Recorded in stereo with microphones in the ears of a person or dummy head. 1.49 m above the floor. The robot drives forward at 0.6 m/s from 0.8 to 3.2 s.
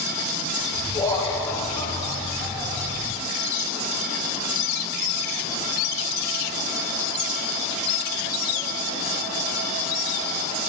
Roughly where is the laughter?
Centre.